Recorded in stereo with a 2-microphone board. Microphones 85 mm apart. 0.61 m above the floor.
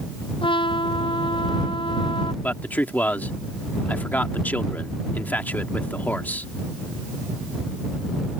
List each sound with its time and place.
0.4 s a trumpet: 85° left
2.4 s a man speaking: 20° left (ahead or behind)